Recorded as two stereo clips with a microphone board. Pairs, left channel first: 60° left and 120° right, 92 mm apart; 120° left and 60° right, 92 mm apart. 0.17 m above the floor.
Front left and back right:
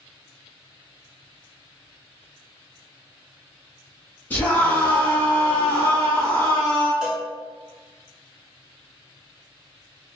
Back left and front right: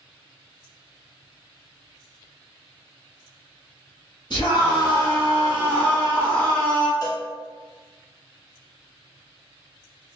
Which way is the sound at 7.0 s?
160° left.